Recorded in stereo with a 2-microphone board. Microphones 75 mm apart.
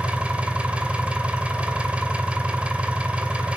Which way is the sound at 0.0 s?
20° right (ahead or behind).